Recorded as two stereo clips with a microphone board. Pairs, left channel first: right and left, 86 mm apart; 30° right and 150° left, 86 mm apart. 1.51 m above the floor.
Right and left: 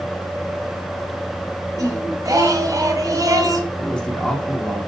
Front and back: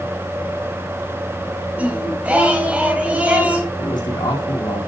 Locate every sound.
1.8 s singing: 85° left, 1.7 m
3.8 s a man speaking: 10° right, 4.5 m